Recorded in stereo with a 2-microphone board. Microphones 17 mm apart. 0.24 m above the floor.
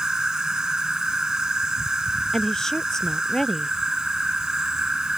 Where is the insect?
55° right (ahead or behind).